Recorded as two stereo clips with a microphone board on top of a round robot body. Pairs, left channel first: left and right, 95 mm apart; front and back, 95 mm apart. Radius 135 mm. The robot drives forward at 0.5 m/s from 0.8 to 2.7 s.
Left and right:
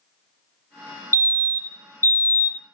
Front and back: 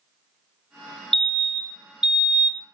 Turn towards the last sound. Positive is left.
turn(degrees=125)